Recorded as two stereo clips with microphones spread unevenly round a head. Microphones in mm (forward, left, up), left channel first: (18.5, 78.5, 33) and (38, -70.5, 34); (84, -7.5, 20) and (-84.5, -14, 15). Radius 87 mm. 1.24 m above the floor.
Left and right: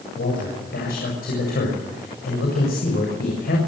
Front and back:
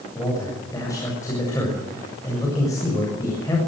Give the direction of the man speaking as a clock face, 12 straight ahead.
10 o'clock.